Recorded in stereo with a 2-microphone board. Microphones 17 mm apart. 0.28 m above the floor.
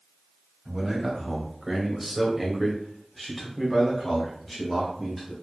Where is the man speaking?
15° right (ahead or behind), 1.6 m; by 5.3 s 5° left (ahead or behind), 1.8 m.